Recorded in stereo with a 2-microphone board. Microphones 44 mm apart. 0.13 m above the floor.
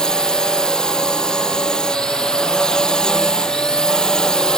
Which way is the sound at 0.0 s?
20° left (ahead or behind).